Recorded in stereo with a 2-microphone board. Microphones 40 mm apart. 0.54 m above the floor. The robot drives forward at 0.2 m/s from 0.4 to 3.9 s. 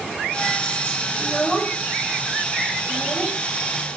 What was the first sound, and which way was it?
A child speaking, 25° left (ahead or behind).